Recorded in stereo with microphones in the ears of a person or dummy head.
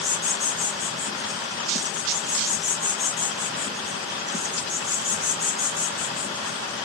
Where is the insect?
10° right (ahead or behind), 2 m.